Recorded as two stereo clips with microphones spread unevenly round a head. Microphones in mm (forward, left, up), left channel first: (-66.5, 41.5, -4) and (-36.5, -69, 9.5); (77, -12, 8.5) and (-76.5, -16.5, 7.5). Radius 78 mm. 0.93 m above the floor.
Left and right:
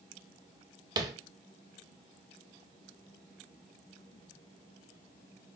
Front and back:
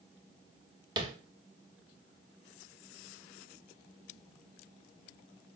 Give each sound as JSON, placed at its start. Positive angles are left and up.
{"t": 1.0, "sound": "tapping", "azimuth_deg": -120, "distance_m": 0.5}